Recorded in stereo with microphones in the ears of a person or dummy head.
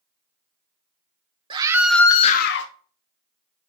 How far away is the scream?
About 1.3 m.